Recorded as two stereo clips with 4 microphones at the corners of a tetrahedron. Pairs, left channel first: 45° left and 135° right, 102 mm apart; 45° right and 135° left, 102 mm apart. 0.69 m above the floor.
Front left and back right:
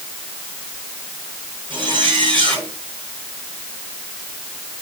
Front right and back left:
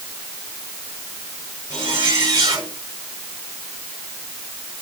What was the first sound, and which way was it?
A zipper, 175° right.